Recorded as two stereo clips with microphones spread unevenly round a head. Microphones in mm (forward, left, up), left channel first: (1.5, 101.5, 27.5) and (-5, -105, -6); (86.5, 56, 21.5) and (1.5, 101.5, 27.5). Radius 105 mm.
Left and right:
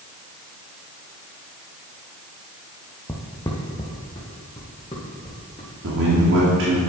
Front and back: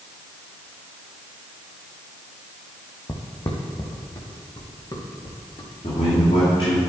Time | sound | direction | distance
3.1 | footsteps | 20° left | 2 m
5.8 | a man speaking | 75° right | 2.5 m